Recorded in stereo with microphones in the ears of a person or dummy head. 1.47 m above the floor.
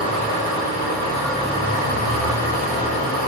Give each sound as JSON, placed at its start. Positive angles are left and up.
{"t": 0.0, "sound": "an engine running", "side_deg": 50, "distance_m": 3.0}